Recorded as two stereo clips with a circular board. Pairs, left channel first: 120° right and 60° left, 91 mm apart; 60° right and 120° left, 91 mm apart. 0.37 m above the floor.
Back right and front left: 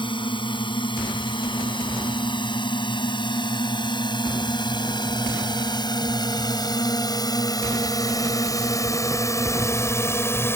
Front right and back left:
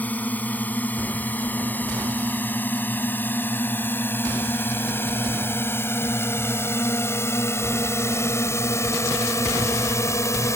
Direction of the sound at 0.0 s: 130° right.